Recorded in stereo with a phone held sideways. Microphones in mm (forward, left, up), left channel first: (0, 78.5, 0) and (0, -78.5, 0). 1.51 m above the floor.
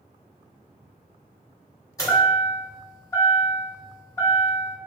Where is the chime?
20° left (ahead or behind), 1.5 m.